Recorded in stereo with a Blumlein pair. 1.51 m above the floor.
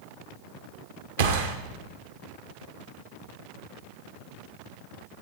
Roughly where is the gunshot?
Ahead right.